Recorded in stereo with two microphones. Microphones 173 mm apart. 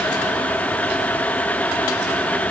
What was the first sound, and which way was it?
Only background noise.